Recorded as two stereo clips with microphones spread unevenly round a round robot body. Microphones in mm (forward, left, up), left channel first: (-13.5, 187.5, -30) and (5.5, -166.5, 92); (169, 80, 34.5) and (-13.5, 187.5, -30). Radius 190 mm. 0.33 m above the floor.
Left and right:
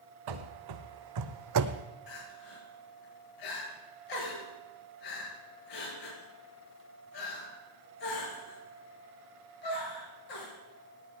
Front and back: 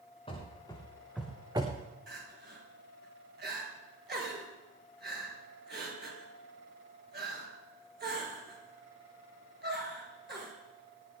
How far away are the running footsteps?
About 2.5 m.